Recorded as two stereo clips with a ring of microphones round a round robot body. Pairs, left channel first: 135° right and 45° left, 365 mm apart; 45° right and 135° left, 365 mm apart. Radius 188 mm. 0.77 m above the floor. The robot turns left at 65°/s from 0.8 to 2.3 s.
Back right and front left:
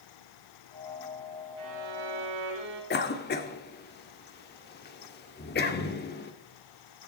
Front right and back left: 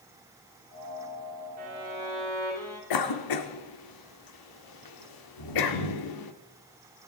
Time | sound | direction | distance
1.6 | a violin | 85° left | 6.5 m
2.9 | a cough | 70° right | 2.5 m